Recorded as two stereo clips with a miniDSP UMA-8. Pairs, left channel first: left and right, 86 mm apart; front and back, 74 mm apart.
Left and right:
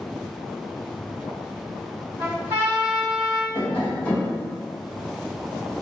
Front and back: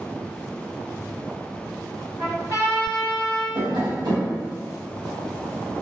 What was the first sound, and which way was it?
A trumpet, 155° right.